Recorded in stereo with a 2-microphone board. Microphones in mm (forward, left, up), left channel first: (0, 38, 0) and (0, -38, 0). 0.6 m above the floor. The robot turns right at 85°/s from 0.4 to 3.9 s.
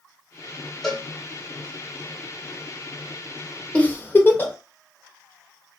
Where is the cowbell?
Centre (ahead or behind), 1.1 m; by 1.1 s 10° right (ahead or behind), 1.1 m.